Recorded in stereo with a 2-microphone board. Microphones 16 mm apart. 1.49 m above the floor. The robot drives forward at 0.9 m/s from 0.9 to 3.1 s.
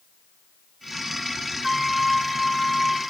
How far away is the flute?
About 0.7 m.